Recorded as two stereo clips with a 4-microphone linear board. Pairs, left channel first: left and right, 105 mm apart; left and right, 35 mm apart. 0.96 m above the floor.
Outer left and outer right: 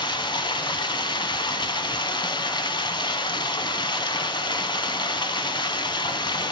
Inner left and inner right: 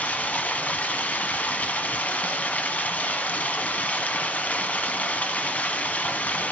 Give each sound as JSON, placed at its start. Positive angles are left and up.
{"t": 0.0, "sound": "running water", "side_deg": 50, "distance_m": 1.2}